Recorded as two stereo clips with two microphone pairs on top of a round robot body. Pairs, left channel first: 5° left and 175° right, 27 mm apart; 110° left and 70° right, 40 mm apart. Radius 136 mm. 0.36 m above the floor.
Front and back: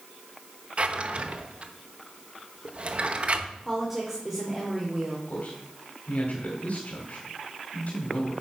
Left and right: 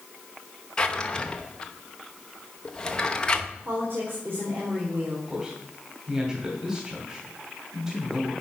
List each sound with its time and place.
0.8 s a drawer: 160° left, 0.9 m
3.6 s a woman speaking: 105° right, 2 m
5.3 s a man speaking: 20° left, 2 m